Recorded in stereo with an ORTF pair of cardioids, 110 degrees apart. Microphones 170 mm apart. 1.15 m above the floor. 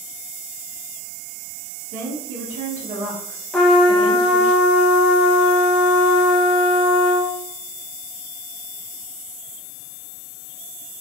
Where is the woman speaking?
55° right, 0.8 m.